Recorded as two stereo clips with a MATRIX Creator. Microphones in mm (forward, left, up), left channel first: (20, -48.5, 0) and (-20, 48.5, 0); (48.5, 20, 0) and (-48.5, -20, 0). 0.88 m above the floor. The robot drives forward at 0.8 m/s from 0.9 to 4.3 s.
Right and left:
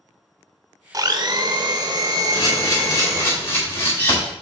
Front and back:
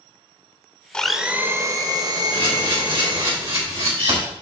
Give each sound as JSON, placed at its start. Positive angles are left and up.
{"t": 0.9, "sound": "a blender", "azimuth_deg": 95, "distance_m": 0.6}
{"t": 2.3, "sound": "a camera shutter", "azimuth_deg": -120, "distance_m": 3.0}